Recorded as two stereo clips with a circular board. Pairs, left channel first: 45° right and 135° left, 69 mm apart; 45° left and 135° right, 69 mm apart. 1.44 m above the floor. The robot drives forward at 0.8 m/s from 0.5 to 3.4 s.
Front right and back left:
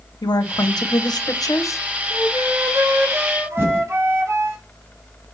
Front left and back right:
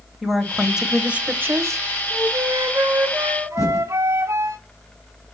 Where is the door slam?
No door slam in this recording.